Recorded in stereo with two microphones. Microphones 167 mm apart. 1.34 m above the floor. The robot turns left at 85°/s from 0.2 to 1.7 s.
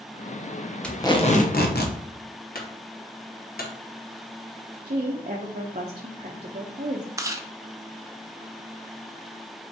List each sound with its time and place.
0.8 s tape being pulled: 175° left, 0.8 m; by 2.0 s 100° left, 0.8 m
2.5 s a clunk: 65° left (ahead or behind), 1.2 m
4.8 s a woman speaking: 50° right (ahead or behind), 0.6 m
7.2 s chewing: 20° right (ahead or behind), 0.5 m